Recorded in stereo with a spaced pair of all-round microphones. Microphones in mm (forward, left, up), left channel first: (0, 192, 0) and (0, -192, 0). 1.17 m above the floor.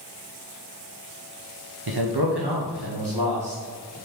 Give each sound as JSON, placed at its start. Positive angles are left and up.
{"t": 1.9, "sound": "a man speaking", "side_deg": -70, "distance_m": 0.9}